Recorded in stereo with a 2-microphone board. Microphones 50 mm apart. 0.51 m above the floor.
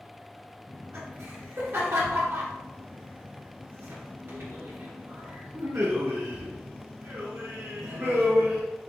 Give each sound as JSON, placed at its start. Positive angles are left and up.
{"t": 0.7, "sound": "laughter", "side_deg": -55, "distance_m": 1.7}